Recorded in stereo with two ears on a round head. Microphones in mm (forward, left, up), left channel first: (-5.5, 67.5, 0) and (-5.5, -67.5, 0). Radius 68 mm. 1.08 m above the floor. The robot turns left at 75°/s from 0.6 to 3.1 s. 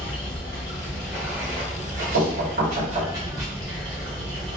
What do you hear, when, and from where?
0.0 s running water: 35° left, 1.9 m; by 4.6 s 150° right, 1.9 m
2.1 s knocking: 85° right, 1.5 m; by 3.1 s 155° right, 1.5 m